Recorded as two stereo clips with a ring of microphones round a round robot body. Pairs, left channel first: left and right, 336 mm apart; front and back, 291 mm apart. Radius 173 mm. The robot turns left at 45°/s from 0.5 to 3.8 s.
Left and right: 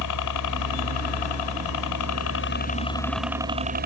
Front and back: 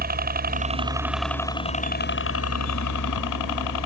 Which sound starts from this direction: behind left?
A helicopter, at 0.0 s.